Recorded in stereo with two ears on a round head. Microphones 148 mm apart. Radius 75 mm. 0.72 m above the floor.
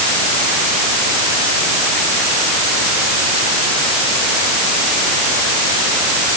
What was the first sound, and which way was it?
Only background noise.